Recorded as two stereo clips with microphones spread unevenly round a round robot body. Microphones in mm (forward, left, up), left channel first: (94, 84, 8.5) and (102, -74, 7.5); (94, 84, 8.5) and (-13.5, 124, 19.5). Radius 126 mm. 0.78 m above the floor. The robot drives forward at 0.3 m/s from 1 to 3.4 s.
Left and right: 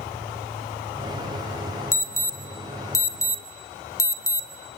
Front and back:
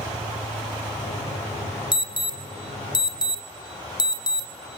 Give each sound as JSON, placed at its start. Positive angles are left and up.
{"t": 1.9, "sound": "an alarm", "azimuth_deg": 20, "distance_m": 2.5}